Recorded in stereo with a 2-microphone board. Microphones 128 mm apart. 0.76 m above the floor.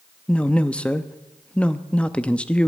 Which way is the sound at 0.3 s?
10° left (ahead or behind).